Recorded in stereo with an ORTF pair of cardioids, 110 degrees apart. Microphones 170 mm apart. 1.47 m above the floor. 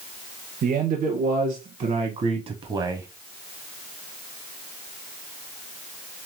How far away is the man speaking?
About 1.9 m.